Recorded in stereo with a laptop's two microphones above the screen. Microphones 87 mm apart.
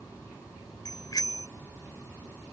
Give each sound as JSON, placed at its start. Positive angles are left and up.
{"t": 0.8, "sound": "a bicycle bell", "side_deg": 50}